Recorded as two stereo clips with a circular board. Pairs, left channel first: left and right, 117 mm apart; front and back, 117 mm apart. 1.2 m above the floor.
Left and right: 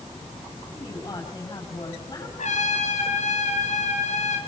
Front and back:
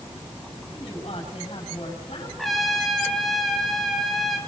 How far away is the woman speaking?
About 8.5 m.